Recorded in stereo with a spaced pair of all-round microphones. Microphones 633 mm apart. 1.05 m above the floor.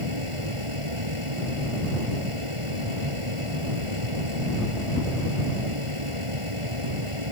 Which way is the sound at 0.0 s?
50° right (ahead or behind).